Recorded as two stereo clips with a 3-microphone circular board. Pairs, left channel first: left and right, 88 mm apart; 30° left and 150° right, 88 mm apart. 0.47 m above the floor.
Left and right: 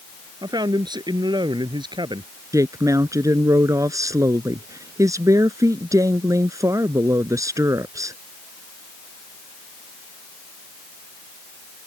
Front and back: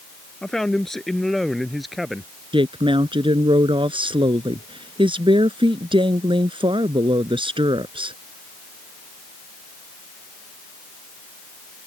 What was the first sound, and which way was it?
A man speaking, 55° right.